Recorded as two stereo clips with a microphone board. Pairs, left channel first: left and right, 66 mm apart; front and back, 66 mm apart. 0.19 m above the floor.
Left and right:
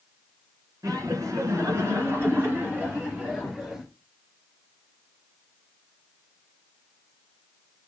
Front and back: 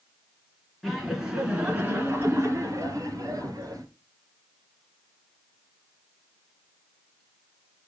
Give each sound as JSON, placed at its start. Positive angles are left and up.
{"t": 0.8, "sound": "laughter", "azimuth_deg": -90, "distance_m": 3.0}